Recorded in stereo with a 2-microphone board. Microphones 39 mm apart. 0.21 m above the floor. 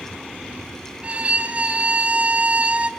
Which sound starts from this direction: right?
A violin, at 1.0 s.